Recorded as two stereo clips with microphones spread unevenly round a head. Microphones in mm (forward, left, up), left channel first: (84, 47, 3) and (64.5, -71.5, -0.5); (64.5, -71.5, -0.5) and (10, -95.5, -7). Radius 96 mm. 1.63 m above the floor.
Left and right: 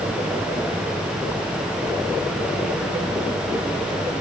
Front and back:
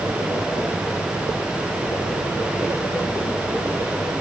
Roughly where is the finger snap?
No finger snap in this recording.